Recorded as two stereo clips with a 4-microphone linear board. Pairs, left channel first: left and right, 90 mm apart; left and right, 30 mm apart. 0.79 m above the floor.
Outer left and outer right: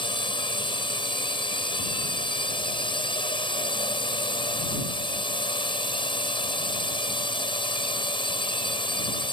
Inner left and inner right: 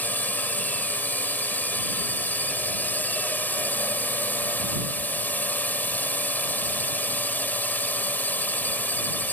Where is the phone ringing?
No phone ringing in this recording.